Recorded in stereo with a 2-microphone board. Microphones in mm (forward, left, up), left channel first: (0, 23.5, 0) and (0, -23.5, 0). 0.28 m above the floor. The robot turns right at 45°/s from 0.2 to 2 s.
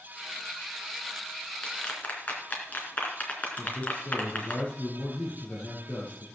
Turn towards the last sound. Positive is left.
turn(degrees=35)  # may be behind; listen again after turning